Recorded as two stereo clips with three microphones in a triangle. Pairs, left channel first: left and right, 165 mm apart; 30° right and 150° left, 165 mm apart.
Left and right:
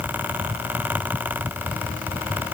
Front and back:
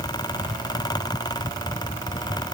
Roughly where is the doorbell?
No doorbell in this recording.